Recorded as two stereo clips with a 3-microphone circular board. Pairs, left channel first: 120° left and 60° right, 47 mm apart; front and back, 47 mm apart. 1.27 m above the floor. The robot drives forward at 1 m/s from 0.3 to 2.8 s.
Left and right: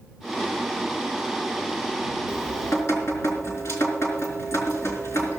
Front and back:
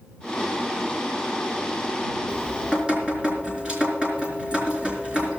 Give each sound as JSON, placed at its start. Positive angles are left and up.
{"t": 2.3, "sound": "dripping", "azimuth_deg": 105, "distance_m": 4.0}